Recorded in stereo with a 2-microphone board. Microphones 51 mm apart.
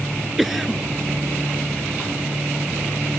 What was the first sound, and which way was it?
A cough, 5° right (ahead or behind).